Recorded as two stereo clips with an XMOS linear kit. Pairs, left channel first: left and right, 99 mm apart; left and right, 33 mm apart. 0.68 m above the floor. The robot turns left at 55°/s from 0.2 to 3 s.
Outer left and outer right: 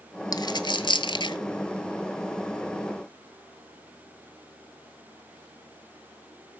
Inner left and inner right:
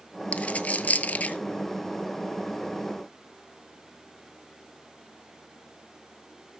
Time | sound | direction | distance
0.3 | a dropped coin | 40° left (ahead or behind) | 1.0 m